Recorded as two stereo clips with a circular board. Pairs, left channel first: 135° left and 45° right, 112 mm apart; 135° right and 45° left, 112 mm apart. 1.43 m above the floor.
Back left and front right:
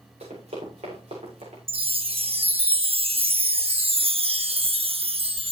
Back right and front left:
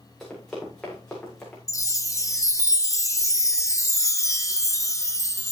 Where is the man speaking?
I don't hear a man speaking.